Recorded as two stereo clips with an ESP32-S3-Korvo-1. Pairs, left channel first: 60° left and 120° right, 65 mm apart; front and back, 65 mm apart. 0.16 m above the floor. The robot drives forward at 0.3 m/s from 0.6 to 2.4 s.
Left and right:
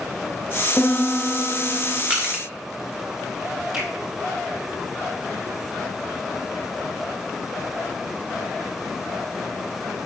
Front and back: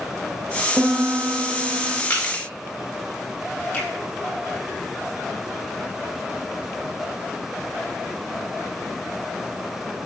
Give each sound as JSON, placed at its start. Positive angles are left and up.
{"t": 0.8, "sound": "a piano", "azimuth_deg": 125, "distance_m": 1.1}
{"t": 2.1, "sound": "crushing", "azimuth_deg": -55, "distance_m": 3.0}
{"t": 3.7, "sound": "a finger snap", "azimuth_deg": -55, "distance_m": 3.5}